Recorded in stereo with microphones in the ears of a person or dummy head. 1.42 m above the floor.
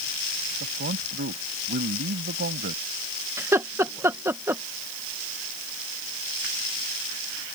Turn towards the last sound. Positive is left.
turn(degrees=-15)  # may be behind; listen again after turning